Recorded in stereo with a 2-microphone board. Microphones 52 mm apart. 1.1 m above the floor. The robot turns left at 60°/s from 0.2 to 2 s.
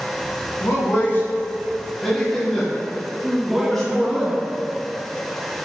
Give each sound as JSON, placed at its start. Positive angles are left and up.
{"t": 0.6, "sound": "a man speaking", "side_deg": 70, "distance_m": 1.7}
{"t": 3.2, "sound": "a woman speaking", "side_deg": -10, "distance_m": 0.6}